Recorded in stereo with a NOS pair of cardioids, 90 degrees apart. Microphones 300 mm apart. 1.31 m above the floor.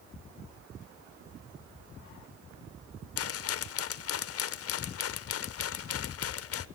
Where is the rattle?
50° left, 0.6 m.